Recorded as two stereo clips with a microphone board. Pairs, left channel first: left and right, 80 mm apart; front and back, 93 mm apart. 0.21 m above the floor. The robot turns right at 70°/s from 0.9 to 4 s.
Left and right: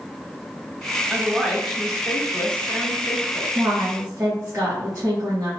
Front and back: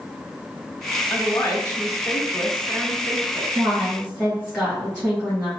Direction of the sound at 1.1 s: 40° right.